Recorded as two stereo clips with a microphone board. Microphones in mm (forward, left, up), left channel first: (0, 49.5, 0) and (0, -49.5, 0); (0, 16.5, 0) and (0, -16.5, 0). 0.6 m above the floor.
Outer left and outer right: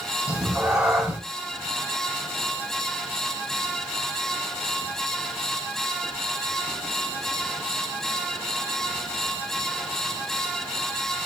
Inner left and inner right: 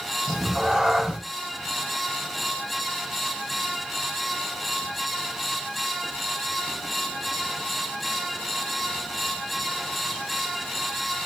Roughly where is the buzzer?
I don't hear a buzzer.